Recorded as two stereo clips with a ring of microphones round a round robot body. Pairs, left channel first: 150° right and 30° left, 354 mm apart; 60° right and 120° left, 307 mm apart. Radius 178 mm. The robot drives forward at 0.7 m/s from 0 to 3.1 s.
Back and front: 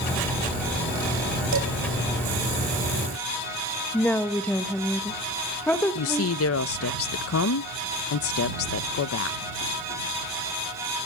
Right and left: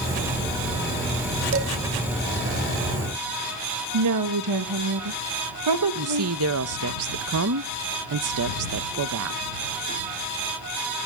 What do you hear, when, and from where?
1.5 s dishes clattering: 75° left, 2 m
3.9 s a woman speaking: 125° left, 1.2 m
6.0 s a woman speaking: 160° left, 0.5 m